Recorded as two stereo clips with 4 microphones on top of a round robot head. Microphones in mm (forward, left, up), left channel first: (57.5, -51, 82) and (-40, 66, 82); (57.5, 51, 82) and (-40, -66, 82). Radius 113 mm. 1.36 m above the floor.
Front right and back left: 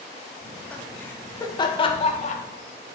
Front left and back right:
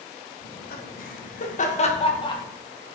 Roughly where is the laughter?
Ahead left.